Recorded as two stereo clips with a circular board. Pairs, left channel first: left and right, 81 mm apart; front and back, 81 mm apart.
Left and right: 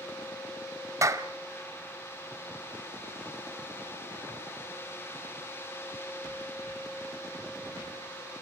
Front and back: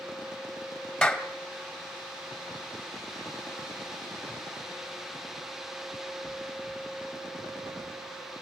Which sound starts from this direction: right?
A clap, at 1.0 s.